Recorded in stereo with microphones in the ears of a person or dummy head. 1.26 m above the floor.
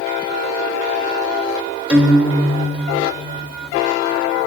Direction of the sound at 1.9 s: 10° right (ahead or behind).